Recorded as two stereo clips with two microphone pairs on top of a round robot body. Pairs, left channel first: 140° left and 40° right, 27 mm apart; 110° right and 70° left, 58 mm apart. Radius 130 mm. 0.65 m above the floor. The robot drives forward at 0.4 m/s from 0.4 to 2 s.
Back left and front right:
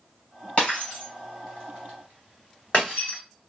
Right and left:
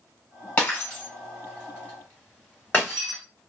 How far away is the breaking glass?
About 1.3 m.